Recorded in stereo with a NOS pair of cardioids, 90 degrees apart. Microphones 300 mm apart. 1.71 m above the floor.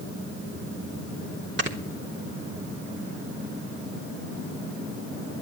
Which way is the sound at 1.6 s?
40° right.